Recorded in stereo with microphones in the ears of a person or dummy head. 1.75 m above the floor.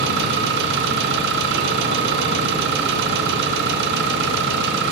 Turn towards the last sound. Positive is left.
turn(degrees=-55)  # may be behind; listen again after turning